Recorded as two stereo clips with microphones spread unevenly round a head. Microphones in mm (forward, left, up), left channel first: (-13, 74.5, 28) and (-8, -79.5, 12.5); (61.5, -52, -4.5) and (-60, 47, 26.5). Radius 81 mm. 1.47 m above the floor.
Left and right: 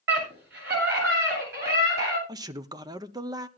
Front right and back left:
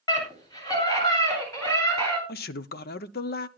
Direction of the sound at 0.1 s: 105° right.